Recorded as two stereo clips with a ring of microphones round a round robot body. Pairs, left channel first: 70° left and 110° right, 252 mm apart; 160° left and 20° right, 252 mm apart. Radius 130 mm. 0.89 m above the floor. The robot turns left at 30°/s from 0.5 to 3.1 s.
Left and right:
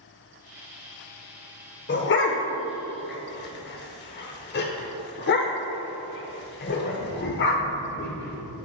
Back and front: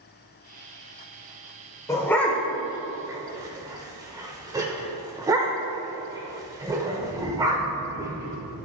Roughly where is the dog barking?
Left.